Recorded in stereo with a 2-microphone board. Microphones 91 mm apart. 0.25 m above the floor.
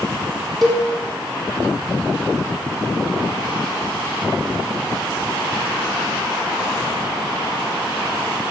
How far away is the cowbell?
About 3.5 m.